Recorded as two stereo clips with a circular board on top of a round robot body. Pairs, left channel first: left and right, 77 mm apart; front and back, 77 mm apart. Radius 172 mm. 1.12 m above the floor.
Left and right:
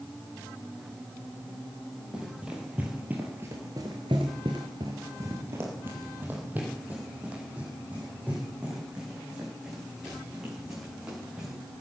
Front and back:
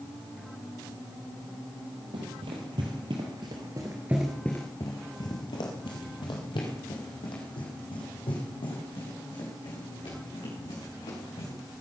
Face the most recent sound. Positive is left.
turn(degrees=-10)